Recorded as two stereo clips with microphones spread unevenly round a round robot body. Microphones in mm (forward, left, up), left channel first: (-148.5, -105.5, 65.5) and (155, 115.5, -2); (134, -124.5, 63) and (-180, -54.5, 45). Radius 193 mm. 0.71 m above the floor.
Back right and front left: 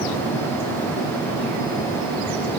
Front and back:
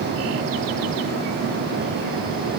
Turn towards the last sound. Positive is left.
No sound to turn to.